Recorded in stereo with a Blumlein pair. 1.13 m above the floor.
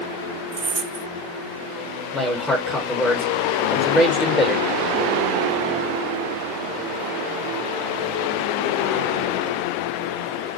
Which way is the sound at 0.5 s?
50° right.